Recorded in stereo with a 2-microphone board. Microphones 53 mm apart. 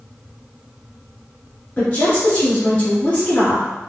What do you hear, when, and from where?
1.8 s a woman speaking: 30° left (ahead or behind), 1.1 m